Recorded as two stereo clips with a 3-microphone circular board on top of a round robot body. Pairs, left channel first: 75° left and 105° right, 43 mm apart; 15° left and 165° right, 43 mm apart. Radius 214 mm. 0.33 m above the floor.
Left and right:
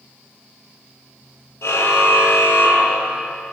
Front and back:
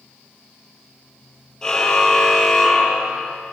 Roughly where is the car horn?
Left.